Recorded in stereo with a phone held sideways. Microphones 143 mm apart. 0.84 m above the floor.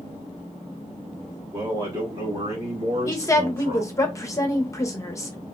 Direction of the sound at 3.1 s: 20° left (ahead or behind).